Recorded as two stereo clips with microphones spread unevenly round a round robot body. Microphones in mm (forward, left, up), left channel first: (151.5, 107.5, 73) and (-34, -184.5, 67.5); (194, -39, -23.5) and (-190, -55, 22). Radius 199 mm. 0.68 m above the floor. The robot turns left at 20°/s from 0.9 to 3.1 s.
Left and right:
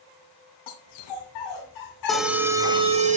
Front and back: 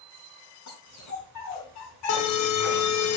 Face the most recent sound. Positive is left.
turn(degrees=-50)